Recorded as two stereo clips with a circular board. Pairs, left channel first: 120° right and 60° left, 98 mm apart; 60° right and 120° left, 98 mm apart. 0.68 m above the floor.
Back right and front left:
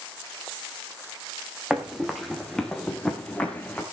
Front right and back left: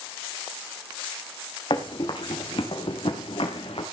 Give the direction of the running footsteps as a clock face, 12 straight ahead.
1 o'clock.